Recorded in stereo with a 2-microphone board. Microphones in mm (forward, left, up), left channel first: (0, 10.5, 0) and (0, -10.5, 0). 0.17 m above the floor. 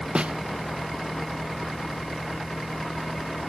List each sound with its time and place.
0.1 s a snare drum: 75° right (ahead or behind)